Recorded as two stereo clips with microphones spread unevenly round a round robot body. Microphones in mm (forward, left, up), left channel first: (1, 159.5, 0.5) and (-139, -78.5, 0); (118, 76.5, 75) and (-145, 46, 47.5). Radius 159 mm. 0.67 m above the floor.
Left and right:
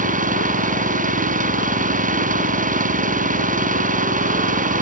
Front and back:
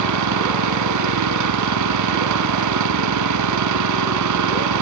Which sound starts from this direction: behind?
An engine running, at 0.0 s.